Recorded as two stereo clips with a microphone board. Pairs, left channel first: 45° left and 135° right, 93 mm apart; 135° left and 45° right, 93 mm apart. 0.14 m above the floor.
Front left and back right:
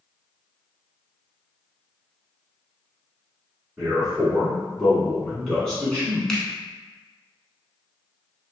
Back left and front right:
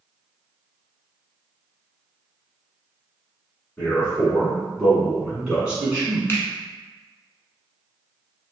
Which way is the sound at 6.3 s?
115° left.